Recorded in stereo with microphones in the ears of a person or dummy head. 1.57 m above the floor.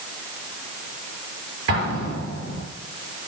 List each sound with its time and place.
1.7 s an explosion: 70° right (ahead or behind), 5 m